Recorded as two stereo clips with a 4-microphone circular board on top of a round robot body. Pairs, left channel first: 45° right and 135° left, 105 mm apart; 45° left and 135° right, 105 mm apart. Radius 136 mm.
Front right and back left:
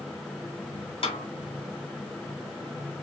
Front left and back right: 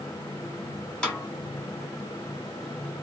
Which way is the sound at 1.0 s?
35° right.